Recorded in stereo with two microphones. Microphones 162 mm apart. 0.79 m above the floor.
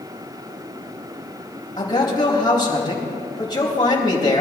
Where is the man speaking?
30° left (ahead or behind), 4 m.